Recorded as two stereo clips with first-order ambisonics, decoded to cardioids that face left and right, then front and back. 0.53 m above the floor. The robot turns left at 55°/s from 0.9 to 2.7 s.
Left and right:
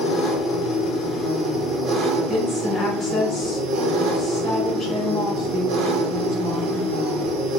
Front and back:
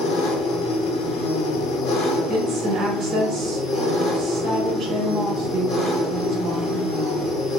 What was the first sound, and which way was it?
An engine running, 35° left.